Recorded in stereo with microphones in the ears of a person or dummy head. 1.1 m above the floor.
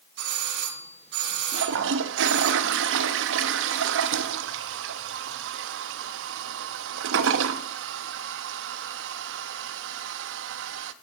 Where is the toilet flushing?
70° right (ahead or behind), 0.8 m.